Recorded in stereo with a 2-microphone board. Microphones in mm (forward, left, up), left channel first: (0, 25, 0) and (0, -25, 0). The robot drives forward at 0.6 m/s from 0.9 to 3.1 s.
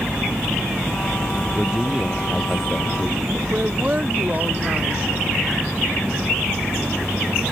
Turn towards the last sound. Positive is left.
turn(degrees=-30)  # may be behind; listen again after turning